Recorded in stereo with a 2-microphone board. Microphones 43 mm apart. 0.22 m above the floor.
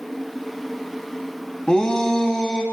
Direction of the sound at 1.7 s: 25° left (ahead or behind).